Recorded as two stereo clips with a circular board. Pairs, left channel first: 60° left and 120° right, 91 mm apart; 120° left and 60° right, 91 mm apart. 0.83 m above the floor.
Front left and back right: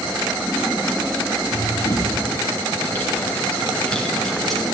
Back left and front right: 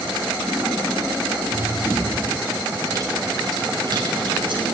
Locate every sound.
1.5 s running footsteps: 5° left, 7 m; by 4.6 s 30° right, 7.5 m